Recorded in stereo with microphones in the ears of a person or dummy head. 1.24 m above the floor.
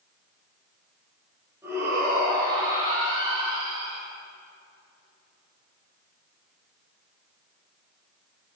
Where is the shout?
10° right (ahead or behind), 7 m; by 4.0 s 20° right (ahead or behind), 6.5 m.